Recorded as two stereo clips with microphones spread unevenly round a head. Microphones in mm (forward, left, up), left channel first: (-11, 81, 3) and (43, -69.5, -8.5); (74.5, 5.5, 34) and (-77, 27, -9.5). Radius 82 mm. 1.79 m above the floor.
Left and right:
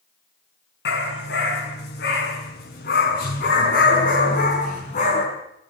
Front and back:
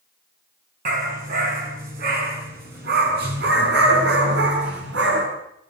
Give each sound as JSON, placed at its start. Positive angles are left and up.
{"t": 0.8, "sound": "a dog barking", "azimuth_deg": 130, "distance_m": 6.0}